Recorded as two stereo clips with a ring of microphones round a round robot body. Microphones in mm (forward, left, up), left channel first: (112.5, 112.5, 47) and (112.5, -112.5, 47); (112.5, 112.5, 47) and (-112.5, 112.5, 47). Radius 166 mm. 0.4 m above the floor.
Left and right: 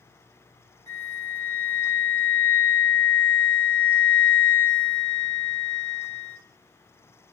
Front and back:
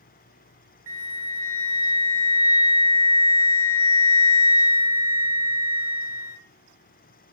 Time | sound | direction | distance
0.9 | a flute | 100° left | 0.7 m